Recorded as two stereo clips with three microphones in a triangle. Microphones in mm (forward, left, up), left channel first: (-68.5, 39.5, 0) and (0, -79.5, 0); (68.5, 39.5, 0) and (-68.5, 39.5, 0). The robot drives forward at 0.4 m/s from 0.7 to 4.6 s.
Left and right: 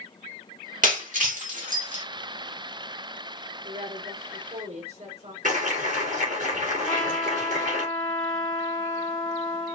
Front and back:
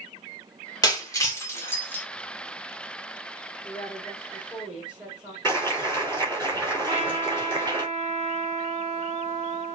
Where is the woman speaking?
85° right, 2 m; by 5.3 s 95° right, 2.5 m.